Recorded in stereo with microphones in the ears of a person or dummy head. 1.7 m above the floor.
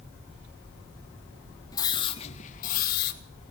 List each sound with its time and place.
1.7 s a scream: 20° left (ahead or behind), 2.5 m; by 3.2 s 60° left (ahead or behind), 2.5 m